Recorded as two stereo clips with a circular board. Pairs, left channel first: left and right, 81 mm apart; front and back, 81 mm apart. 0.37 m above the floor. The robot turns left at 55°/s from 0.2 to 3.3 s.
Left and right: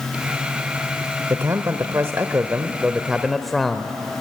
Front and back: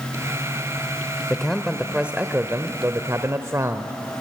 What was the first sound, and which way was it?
A man speaking, 75° right.